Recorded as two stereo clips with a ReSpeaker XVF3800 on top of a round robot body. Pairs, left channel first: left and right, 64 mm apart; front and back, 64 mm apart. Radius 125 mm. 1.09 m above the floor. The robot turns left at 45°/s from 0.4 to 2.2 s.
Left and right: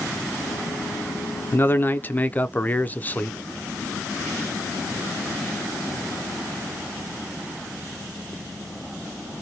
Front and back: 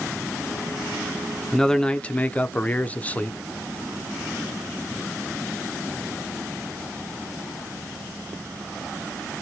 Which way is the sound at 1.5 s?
80° left.